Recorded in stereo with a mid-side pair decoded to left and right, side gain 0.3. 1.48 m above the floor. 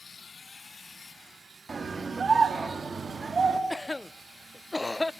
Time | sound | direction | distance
1.7 | a scream | 45° right | 3 m
3.7 | a cough | 20° left | 0.5 m